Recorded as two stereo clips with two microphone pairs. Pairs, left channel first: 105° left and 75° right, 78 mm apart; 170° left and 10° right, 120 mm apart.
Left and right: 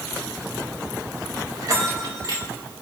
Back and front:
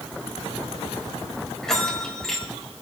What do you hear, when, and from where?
1.6 s a bell: 100° right, 2.5 m